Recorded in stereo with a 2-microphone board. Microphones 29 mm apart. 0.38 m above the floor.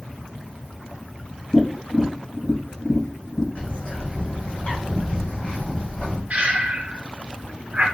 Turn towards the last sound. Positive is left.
turn(degrees=-50)  # may be behind; listen again after turning